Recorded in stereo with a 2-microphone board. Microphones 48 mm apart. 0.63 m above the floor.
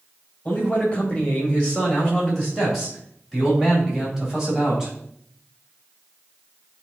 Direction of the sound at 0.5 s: 25° left (ahead or behind).